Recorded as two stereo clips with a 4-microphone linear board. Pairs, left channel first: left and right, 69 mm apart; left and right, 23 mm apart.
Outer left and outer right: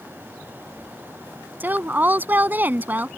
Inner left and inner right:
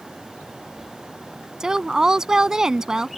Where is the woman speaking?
30° right (ahead or behind).